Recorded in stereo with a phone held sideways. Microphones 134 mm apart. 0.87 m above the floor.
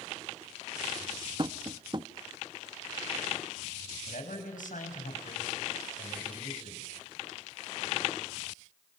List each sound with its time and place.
1.4 s tapping: 35° right (ahead or behind), 0.7 m
4.1 s a man speaking: 85° left, 5.5 m